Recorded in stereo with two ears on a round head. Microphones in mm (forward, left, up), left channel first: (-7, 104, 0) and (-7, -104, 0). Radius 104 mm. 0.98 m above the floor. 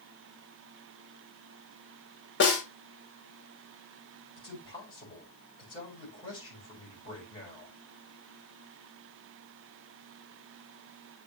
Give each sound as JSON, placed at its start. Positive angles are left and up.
{"t": 2.4, "sound": "a snare drum", "side_deg": 50, "distance_m": 3.0}
{"t": 4.4, "sound": "a man speaking", "side_deg": 20, "distance_m": 5.0}